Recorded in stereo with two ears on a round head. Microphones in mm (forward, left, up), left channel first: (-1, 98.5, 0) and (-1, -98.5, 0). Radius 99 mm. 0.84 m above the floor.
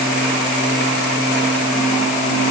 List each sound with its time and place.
Only background noise.